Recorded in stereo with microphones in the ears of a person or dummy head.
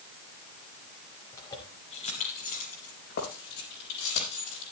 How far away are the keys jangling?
About 2.5 m.